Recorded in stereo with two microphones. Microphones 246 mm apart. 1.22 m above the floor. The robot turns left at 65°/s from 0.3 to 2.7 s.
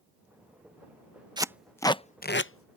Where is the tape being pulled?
20° right (ahead or behind); by 2.8 s 70° left (ahead or behind).